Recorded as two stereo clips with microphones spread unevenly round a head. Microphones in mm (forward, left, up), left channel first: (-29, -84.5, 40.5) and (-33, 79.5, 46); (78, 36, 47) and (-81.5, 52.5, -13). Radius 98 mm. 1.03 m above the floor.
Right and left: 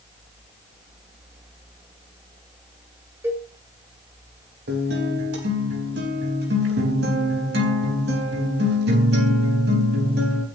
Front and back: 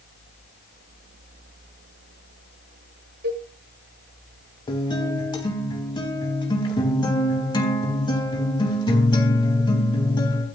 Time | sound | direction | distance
3.2 | a cowbell | 165° left | 4.5 m
4.7 | a guitar | 55° left | 4 m